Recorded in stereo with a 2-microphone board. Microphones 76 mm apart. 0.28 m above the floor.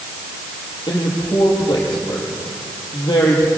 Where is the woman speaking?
65° left (ahead or behind), 8 m.